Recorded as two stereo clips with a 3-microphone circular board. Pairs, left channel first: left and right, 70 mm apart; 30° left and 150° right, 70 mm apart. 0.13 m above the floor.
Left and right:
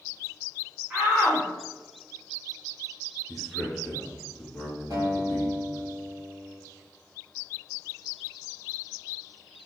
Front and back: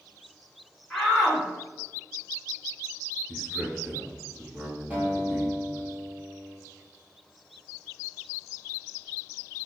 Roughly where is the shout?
Ahead right.